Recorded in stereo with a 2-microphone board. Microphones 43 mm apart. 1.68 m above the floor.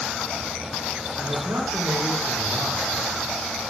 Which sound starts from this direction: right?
A man speaking, at 1.2 s.